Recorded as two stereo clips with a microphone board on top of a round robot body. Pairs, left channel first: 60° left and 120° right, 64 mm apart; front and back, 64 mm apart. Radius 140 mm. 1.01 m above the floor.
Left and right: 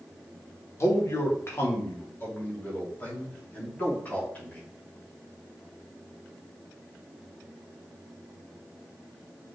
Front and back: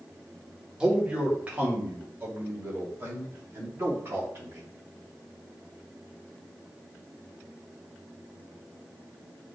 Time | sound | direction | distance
0.8 | a man speaking | 100° left | 2.0 m